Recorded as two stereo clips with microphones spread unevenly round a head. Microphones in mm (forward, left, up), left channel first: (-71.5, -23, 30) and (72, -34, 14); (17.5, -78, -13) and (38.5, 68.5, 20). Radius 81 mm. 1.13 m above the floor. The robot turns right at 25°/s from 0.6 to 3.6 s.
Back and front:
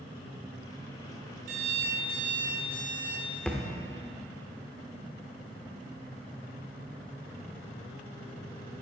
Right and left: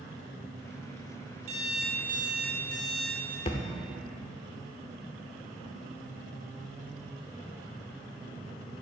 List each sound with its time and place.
1.5 s an alarm clock: 35° left, 2 m; by 3.4 s 80° left, 2 m
3.5 s a thud: 125° right, 0.8 m; by 3.7 s 120° right, 0.8 m